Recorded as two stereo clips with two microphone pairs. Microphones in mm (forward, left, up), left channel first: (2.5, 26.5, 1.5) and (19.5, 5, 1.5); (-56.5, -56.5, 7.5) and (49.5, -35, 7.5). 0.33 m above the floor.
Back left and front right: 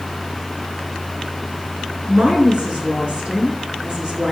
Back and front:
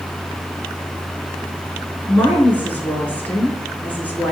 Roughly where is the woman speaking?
Right.